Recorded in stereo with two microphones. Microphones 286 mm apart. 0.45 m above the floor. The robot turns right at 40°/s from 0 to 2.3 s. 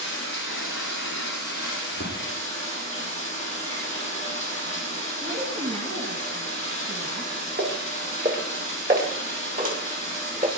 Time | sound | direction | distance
0.0 | running water | 65° left | 8.5 m
5.2 | a woman speaking | 55° right (ahead or behind) | 4.5 m
7.6 | footsteps | 40° right (ahead or behind) | 4 m